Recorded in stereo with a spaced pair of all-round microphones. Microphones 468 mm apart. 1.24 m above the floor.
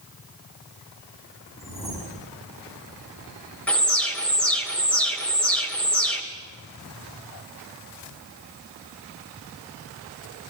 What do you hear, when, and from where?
1.6 s a whoosh: 5° right (ahead or behind), 8 m
3.7 s an alarm: centre (ahead or behind), 2.5 m